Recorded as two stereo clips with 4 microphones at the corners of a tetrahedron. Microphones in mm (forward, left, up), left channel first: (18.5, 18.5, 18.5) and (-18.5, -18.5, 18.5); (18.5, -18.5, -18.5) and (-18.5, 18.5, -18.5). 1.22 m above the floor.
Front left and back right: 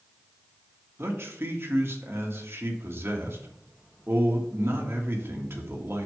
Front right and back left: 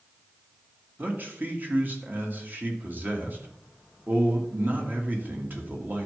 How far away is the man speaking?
About 1.7 m.